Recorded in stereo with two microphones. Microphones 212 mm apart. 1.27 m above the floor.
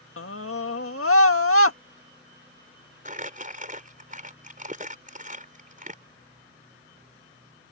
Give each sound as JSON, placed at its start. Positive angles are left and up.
{"t": 0.2, "sound": "a scream", "side_deg": 75}
{"t": 3.0, "sound": "crumpling", "side_deg": -35}